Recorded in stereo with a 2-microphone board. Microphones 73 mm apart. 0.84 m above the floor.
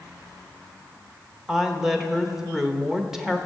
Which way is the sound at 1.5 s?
5° right (ahead or behind).